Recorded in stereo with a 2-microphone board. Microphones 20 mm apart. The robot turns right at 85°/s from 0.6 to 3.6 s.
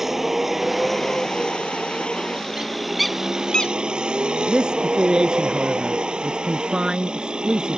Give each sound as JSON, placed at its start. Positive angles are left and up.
{"t": 0.0, "sound": "a vehicle", "azimuth_deg": -15}
{"t": 2.6, "sound": "a bird", "side_deg": -35}
{"t": 4.5, "sound": "a man speaking", "side_deg": -55}